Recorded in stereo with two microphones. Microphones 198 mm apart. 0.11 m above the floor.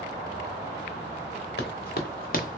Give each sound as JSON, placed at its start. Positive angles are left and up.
{"t": 1.6, "sound": "running footsteps", "side_deg": 60, "distance_m": 1.4}